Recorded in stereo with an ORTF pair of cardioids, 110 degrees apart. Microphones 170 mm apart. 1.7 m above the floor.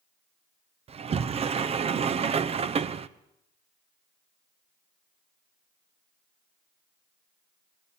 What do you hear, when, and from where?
0.9 s a sliding door: 35° right, 1.0 m